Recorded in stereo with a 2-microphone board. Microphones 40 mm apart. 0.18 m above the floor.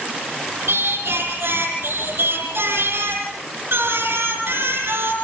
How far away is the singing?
About 5.5 m.